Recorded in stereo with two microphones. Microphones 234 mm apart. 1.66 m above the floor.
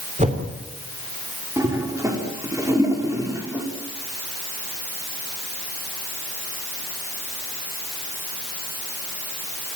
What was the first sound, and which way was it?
A whoosh, 30° right (ahead or behind).